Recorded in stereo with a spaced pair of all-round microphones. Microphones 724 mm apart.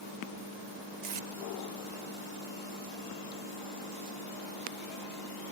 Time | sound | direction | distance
1.0 | tape being pulled | 65° right (ahead or behind) | ?